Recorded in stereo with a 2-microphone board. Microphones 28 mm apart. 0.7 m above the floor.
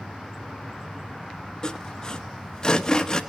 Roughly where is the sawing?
Left.